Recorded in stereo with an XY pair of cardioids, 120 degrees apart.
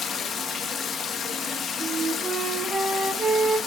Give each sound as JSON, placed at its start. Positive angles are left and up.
{"t": 0.0, "sound": "running water", "azimuth_deg": 45, "distance_m": 1.4}
{"t": 1.8, "sound": "a flute", "azimuth_deg": -25, "distance_m": 2.0}